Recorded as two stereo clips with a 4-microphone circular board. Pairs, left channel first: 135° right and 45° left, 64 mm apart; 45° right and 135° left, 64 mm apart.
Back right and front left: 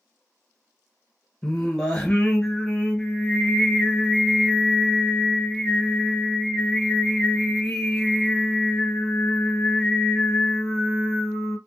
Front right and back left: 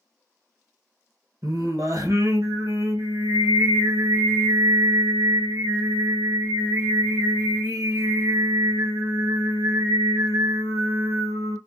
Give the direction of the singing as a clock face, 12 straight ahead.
7 o'clock.